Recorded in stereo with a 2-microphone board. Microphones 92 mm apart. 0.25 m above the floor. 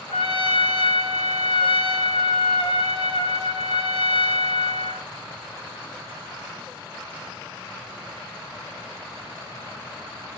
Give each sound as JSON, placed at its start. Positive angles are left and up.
{"t": 0.1, "sound": "a trumpet", "side_deg": 70, "distance_m": 0.7}